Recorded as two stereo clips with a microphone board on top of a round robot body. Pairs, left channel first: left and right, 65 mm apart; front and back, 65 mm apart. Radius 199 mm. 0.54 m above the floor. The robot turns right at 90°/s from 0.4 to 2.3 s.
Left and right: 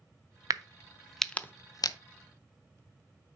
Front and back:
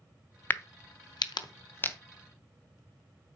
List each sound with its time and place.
0.5 s a crack: 60° right, 0.6 m; by 2.0 s 70° left, 0.6 m